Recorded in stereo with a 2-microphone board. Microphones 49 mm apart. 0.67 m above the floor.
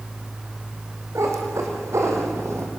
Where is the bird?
I don't hear a bird.